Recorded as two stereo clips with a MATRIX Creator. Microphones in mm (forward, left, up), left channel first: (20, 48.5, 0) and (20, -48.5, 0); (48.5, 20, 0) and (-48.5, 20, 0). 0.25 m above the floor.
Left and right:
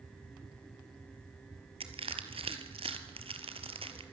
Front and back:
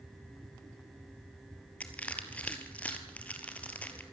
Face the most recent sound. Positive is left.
turn(degrees=-75)